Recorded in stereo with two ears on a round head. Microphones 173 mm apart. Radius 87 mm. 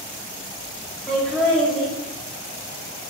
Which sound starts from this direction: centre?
Laughter, at 1.1 s.